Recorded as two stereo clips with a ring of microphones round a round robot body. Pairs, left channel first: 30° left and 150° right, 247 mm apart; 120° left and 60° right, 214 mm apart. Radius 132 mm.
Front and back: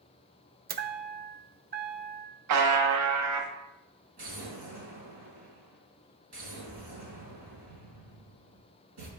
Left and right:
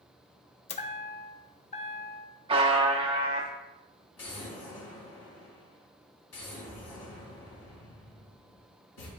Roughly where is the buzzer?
Behind right.